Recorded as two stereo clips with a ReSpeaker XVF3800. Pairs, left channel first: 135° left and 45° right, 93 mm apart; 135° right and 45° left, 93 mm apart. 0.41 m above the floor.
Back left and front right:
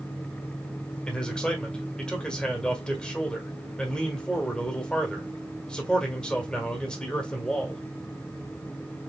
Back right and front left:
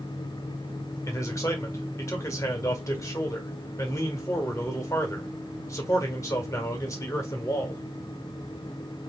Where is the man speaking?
150° right, 1.4 m.